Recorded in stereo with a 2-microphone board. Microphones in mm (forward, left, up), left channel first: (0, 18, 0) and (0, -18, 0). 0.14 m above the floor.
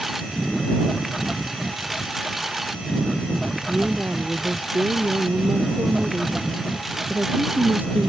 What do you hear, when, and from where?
0.0 s a lawn mower: 5° right (ahead or behind)
3.7 s a woman speaking: 60° right (ahead or behind)